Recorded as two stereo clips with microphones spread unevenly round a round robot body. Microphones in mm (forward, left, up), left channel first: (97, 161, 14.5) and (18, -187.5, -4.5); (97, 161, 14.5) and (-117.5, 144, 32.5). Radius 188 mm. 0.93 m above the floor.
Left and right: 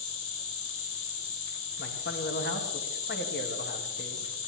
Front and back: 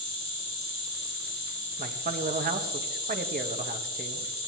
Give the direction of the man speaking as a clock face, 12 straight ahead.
7 o'clock.